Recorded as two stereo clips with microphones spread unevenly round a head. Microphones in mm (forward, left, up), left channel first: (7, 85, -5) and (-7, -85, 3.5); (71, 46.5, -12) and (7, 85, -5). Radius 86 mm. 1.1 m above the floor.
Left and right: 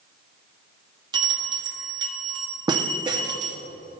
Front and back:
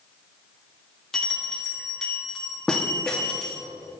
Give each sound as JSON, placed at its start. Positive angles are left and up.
{"t": 1.1, "sound": "a bell", "azimuth_deg": -80, "distance_m": 0.7}